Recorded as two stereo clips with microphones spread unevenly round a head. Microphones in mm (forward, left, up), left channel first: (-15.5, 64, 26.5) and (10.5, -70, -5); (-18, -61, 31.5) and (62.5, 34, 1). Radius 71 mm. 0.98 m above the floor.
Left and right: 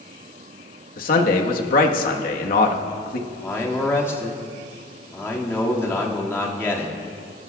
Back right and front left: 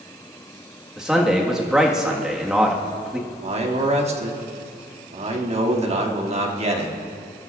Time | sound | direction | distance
1.0 | a man speaking | 130° left | 1.5 m
3.3 | a man speaking | 20° left | 2 m